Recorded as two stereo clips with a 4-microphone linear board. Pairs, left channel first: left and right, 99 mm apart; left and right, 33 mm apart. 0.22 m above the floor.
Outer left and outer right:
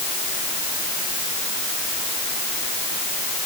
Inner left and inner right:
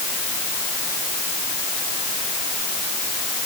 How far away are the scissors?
No scissors in this recording.